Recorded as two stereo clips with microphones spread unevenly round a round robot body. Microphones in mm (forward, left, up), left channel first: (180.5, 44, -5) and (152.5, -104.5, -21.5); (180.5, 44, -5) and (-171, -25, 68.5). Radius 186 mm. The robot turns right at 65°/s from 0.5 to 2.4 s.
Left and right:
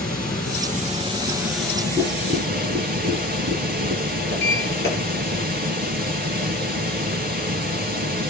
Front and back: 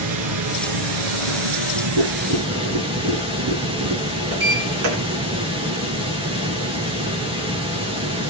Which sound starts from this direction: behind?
A sliding door, at 4.3 s.